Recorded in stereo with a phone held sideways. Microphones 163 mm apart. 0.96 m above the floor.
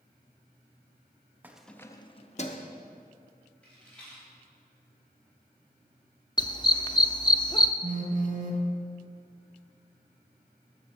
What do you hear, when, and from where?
1.4 s keys jangling: 10° right (ahead or behind), 0.6 m; by 2.7 s 50° left (ahead or behind), 0.9 m
3.6 s a rattle: 5° left (ahead or behind), 4 m
6.4 s a dog barking: 30° left (ahead or behind), 0.5 m
7.8 s a phone buzzing: 55° right (ahead or behind), 1.1 m